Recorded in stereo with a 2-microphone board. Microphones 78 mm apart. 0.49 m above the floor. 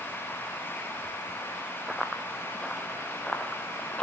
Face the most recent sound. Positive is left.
turn(degrees=10)  # may be behind; listen again after turning